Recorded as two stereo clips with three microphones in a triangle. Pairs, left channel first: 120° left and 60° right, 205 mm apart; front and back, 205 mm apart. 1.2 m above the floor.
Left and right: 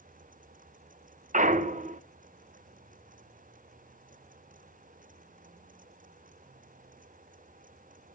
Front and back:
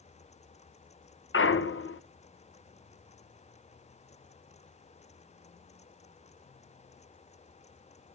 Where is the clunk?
5° right, 0.8 m.